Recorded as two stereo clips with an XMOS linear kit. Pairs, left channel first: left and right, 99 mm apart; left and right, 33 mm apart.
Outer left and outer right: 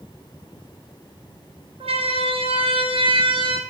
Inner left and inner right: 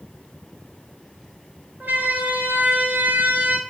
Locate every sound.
1.8 s a siren: 80° right, 5.5 m; by 3.6 s 60° right (ahead or behind), 5.5 m